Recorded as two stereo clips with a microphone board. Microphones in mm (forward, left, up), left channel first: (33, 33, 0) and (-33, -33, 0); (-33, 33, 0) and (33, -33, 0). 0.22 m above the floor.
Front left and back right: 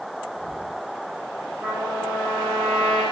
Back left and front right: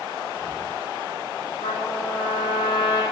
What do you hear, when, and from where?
1.6 s a trumpet: 160° left, 8 m